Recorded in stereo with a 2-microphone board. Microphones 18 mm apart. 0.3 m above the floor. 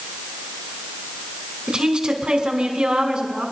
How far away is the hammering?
No hammering in this recording.